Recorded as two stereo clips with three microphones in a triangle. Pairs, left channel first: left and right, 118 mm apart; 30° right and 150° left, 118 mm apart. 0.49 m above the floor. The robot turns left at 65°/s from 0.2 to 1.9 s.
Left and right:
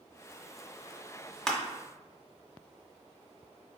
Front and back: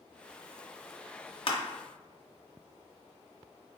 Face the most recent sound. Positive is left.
turn(degrees=-25)